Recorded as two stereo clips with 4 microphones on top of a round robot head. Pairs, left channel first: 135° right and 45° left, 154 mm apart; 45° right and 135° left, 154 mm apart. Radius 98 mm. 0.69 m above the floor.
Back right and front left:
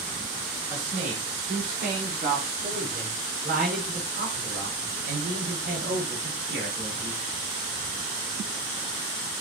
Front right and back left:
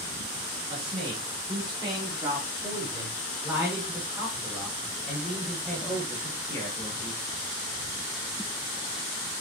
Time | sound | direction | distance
0.7 | a man speaking | 80° left | 5.5 m